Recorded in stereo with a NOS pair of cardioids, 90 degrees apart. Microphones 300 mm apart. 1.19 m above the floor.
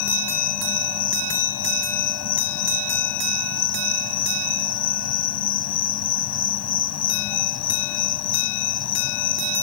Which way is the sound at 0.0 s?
60° left.